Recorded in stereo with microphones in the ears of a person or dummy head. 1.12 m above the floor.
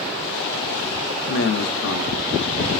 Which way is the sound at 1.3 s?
65° left (ahead or behind).